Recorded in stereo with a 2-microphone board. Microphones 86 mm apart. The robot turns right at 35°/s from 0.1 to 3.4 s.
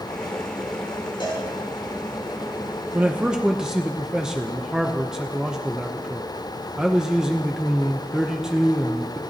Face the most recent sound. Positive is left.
turn(degrees=-5)  # may be behind; listen again after turning